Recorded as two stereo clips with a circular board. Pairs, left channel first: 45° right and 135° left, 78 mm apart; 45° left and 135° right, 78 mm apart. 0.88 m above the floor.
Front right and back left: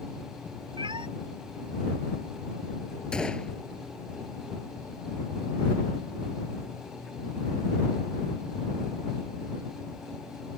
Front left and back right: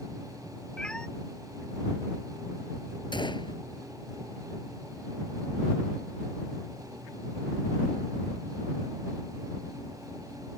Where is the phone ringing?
I don't hear a phone ringing.